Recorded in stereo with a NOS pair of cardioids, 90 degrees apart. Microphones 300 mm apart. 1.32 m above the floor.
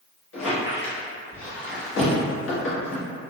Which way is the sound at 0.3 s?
45° left.